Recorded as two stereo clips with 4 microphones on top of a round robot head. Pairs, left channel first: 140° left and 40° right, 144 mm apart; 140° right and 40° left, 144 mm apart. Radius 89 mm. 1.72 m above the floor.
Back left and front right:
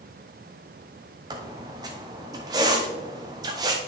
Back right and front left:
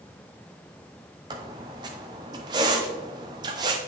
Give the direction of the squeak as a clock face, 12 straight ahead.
12 o'clock.